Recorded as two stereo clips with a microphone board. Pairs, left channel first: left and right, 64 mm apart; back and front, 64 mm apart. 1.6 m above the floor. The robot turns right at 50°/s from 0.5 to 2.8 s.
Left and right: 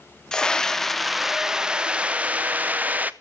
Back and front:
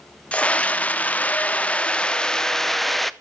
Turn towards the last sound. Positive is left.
turn(degrees=-95)